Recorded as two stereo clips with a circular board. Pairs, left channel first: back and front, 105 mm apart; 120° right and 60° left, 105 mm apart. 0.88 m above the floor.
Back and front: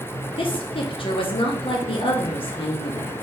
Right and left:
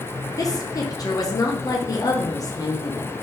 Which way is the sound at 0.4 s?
170° right.